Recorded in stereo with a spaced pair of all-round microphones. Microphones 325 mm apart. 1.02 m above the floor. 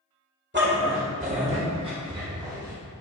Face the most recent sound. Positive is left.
turn(degrees=-10)  # may be behind; listen again after turning